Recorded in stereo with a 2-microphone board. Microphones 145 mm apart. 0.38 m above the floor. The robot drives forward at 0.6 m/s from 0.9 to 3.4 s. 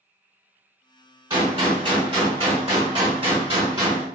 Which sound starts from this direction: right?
A gunshot, at 1.3 s.